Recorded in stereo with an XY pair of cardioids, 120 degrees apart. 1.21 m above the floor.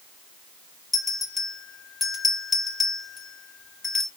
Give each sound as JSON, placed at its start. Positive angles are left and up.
{"t": 0.9, "sound": "a bell", "azimuth_deg": 25, "distance_m": 2.5}